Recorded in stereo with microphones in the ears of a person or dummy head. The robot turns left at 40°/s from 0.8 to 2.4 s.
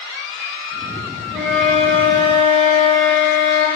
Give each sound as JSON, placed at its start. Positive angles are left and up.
{"t": 1.3, "sound": "a flute", "azimuth_deg": 180, "distance_m": 3.5}